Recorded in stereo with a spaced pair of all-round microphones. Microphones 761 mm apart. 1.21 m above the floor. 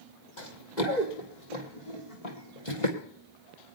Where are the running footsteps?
65° left (ahead or behind), 3 m; by 3.0 s 40° left (ahead or behind), 2.5 m.